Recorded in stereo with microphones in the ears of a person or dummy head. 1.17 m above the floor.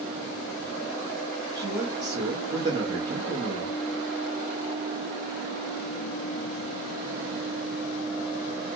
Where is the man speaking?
20° right (ahead or behind), 0.8 m.